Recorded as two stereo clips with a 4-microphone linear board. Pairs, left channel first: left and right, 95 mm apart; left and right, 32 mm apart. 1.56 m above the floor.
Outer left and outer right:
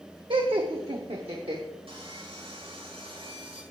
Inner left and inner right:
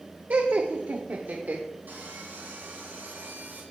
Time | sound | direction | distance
0.3 | laughter | 60° right (ahead or behind) | 0.9 m
1.9 | sawing | 80° right | 5.5 m